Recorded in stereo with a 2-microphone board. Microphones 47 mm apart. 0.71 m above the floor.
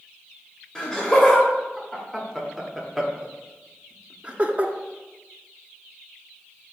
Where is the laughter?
15° left (ahead or behind), 2.5 m; by 4.7 s 35° right (ahead or behind), 1.1 m.